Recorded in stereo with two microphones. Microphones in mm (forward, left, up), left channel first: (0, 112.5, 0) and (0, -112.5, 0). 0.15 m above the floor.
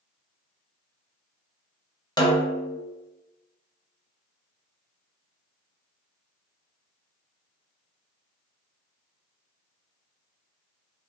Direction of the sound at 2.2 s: 20° left (ahead or behind).